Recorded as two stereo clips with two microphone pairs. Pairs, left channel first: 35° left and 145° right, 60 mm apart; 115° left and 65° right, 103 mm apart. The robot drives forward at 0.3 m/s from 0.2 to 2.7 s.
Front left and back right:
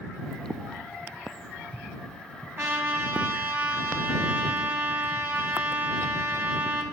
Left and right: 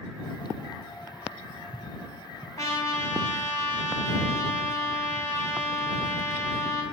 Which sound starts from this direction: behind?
A trumpet, at 2.6 s.